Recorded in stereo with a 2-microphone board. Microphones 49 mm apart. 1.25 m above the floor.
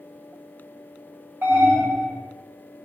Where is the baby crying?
No baby crying in this recording.